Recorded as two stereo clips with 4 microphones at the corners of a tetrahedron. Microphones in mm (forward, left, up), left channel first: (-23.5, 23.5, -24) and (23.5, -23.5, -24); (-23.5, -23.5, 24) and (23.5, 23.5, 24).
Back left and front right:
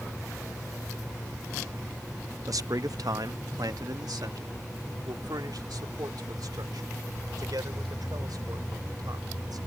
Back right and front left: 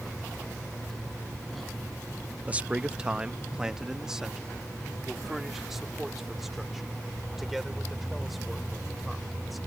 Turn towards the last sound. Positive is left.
turn(degrees=-45)